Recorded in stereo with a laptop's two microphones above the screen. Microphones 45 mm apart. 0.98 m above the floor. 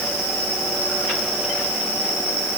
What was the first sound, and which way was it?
Only background noise.